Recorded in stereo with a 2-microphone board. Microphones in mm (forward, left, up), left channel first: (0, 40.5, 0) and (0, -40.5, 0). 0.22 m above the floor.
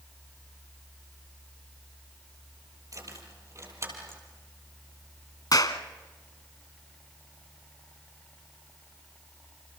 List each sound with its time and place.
2.9 s keys jangling: 45° right (ahead or behind), 4.5 m; by 4.2 s 30° right (ahead or behind), 5 m
5.5 s a clap: 55° left (ahead or behind), 1.4 m